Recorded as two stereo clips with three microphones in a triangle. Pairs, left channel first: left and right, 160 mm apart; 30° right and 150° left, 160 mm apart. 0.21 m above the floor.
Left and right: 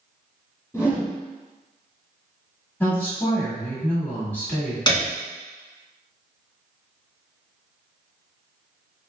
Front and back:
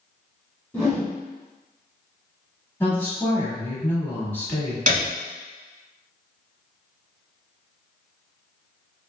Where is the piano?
145° left, 0.8 m.